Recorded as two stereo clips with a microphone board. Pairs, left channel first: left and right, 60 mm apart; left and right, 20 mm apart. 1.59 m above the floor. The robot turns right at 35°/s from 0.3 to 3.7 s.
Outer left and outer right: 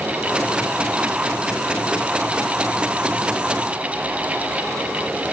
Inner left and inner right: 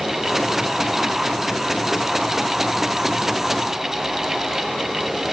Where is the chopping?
No chopping in this recording.